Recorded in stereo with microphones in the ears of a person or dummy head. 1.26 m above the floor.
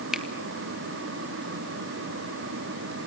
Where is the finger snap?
Centre (ahead or behind), 1.1 m.